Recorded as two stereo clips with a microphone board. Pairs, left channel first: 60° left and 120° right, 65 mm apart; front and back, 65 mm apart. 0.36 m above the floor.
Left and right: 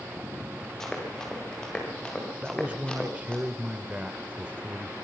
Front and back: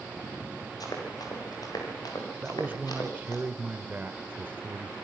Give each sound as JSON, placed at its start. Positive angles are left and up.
{"t": 0.8, "sound": "running footsteps", "azimuth_deg": -25, "distance_m": 8.5}
{"t": 2.4, "sound": "a man speaking", "azimuth_deg": -165, "distance_m": 0.9}